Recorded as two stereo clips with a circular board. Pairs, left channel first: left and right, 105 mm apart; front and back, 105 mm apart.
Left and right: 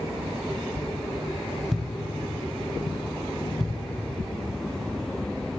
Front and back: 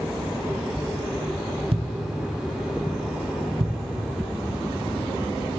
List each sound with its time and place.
1.7 s a thud: straight behind, 0.8 m